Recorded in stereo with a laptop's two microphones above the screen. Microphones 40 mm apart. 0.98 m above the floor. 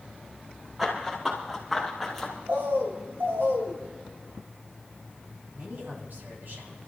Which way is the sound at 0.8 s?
10° right (ahead or behind).